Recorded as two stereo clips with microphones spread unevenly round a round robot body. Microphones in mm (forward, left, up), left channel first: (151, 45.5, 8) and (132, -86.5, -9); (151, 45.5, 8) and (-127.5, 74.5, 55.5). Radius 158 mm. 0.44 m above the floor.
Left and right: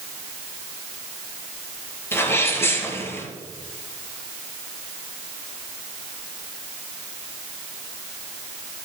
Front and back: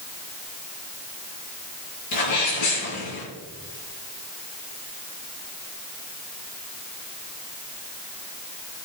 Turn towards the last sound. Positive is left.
turn(degrees=10)